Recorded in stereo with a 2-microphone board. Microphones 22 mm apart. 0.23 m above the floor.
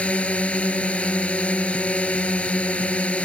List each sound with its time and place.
0.0 s a drone: 70° left (ahead or behind)